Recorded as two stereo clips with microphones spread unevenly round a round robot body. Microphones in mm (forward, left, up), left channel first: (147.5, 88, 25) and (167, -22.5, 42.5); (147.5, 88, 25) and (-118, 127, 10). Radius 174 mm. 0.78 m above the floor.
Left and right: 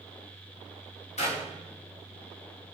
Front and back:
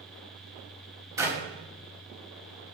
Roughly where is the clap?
Left.